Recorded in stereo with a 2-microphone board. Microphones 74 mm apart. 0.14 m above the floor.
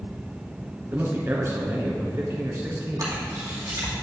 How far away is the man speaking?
About 1.3 m.